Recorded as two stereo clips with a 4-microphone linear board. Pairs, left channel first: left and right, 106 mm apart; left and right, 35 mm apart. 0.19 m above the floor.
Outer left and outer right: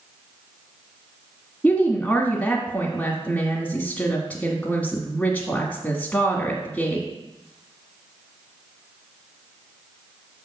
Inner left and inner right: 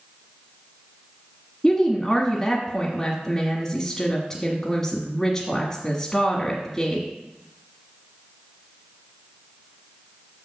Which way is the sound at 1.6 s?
15° left (ahead or behind).